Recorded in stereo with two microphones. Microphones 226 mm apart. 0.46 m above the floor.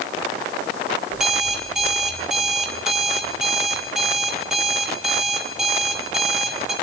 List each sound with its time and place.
1.1 s an alarm clock: centre (ahead or behind), 4.5 m